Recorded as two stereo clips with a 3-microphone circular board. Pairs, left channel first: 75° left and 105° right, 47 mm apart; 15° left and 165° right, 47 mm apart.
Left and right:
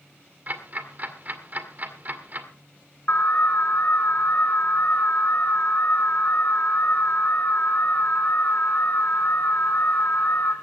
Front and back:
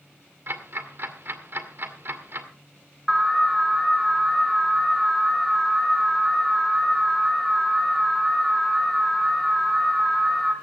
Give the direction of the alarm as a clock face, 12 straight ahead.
9 o'clock.